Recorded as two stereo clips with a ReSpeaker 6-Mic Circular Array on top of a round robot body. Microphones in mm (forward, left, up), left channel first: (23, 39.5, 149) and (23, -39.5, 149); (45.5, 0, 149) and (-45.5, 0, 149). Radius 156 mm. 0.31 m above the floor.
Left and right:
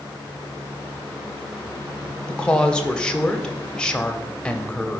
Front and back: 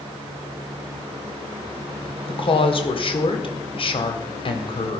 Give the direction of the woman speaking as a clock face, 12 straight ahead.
12 o'clock.